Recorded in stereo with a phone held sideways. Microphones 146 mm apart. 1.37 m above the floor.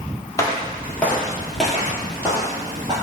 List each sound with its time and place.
0.4 s footsteps: 25° left (ahead or behind), 1.5 m; by 2.9 s 30° right (ahead or behind), 1.5 m